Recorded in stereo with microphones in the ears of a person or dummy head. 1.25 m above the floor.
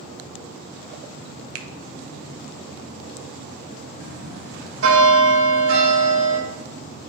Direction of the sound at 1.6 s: 70° right (ahead or behind).